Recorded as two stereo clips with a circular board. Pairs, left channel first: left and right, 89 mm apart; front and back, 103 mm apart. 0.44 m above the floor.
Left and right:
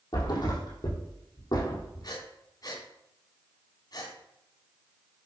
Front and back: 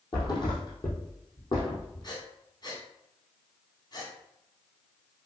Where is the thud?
45° left, 3.5 m.